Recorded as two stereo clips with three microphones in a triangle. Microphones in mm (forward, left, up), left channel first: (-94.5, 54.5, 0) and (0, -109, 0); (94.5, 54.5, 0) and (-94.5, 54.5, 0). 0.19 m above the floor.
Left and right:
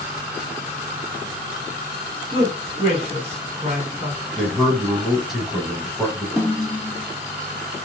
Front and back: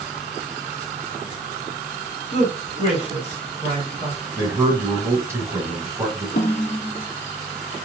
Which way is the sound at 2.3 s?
25° right.